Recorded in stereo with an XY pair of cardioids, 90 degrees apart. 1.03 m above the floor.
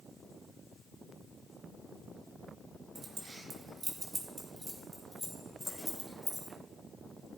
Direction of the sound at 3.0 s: 45° right.